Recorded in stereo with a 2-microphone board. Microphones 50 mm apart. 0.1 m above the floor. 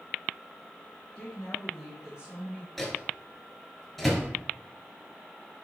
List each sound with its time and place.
1.1 s a woman speaking: 15° left (ahead or behind), 1.4 m; by 2.7 s 30° right (ahead or behind), 1.6 m
2.8 s a microwave: centre (ahead or behind), 1.2 m